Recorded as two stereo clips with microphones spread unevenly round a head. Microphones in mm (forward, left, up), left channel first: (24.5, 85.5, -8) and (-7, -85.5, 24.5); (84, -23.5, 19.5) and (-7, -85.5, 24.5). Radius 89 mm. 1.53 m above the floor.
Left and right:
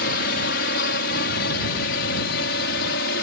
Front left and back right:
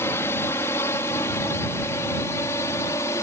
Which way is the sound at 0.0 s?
110° left.